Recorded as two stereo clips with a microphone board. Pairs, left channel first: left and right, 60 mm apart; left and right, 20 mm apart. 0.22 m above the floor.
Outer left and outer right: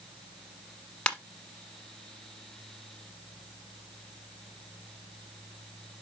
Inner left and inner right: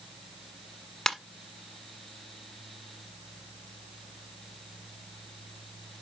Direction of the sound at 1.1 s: 15° left (ahead or behind).